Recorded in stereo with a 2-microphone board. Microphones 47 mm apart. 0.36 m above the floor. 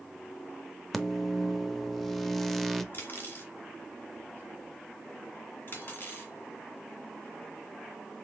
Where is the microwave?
5° left (ahead or behind), 0.6 m.